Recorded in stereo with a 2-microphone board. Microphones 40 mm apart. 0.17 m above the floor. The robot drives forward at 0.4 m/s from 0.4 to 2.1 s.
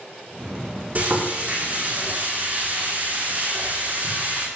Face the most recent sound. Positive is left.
turn(degrees=-45)  # may be behind; listen again after turning